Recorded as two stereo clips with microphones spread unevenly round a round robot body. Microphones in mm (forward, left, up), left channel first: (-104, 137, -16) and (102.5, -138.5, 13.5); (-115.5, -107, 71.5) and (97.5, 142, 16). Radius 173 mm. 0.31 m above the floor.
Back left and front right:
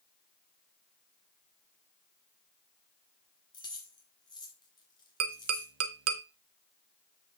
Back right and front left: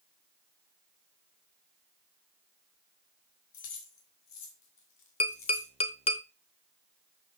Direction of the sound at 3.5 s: 155° right.